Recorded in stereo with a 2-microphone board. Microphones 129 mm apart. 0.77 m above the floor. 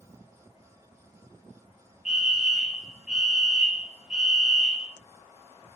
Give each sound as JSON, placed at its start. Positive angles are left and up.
{"t": 2.0, "sound": "a fire alarm", "side_deg": -5, "distance_m": 2.5}